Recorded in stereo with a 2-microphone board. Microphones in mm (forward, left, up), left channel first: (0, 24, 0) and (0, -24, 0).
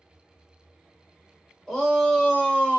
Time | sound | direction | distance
1.7 | a shout | 10° left (ahead or behind) | 2 m